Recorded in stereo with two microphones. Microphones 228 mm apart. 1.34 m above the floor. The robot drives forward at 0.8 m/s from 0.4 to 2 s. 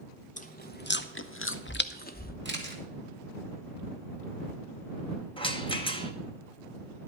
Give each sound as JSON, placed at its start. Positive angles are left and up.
{"t": 0.4, "sound": "chewing", "side_deg": 35, "distance_m": 1.0}
{"t": 2.5, "sound": "a camera shutter", "side_deg": -55, "distance_m": 2.0}
{"t": 5.4, "sound": "a rattle", "side_deg": 25, "distance_m": 1.1}